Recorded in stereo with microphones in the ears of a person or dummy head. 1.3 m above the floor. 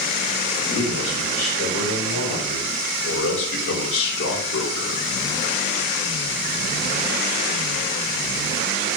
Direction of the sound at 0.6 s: 85° left.